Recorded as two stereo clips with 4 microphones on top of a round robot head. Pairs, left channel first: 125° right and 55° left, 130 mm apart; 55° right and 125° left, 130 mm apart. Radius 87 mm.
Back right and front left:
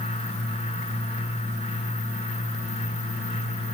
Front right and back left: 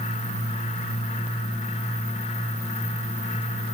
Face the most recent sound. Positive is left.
No sound to turn to.